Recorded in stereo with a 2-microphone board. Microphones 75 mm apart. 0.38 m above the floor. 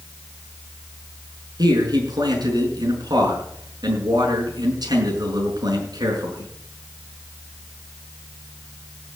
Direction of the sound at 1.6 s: 70° right (ahead or behind).